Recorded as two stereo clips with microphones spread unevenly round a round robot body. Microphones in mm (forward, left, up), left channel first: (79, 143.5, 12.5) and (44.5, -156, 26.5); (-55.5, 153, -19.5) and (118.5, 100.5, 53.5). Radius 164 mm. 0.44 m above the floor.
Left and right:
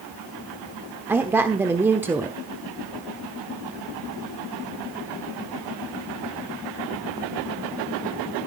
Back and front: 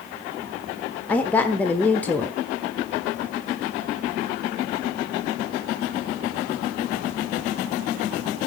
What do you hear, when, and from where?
1.1 s a woman speaking: straight behind, 1.0 m